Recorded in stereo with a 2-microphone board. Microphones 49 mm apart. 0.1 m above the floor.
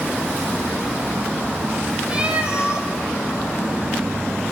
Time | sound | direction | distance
2.1 | a cat meowing | 20° right (ahead or behind) | 2 m